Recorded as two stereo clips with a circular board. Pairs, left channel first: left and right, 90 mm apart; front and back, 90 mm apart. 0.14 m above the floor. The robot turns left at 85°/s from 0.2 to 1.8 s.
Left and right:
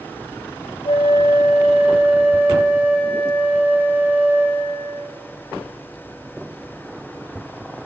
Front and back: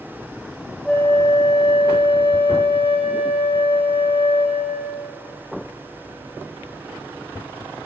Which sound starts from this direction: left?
A flute, at 0.8 s.